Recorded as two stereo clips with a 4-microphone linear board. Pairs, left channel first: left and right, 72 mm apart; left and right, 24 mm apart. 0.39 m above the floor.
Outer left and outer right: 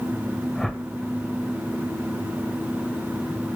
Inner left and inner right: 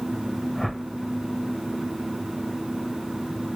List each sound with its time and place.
0.6 s a whoosh: 5° left (ahead or behind), 0.8 m